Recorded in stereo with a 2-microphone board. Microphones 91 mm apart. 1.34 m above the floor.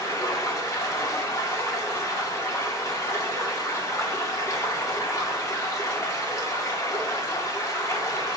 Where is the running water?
35° left (ahead or behind), 1.0 m.